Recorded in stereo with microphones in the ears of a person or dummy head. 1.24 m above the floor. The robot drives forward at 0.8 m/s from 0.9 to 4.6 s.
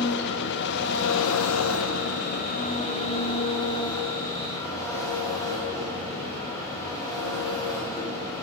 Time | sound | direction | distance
0.0 | an engine running | 55° left (ahead or behind) | 1.0 m